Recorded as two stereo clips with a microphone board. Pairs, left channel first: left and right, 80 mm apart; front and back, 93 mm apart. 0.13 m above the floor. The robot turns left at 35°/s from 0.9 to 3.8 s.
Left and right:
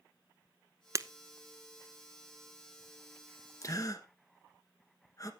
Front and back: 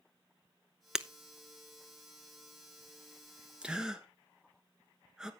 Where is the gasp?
105° left, 1.3 m; by 5.3 s 100° left, 1.3 m.